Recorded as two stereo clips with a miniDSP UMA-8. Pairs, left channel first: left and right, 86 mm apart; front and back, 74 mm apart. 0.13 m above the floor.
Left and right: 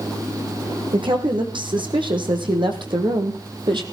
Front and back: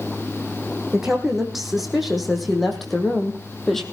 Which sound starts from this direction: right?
A woman speaking, at 0.9 s.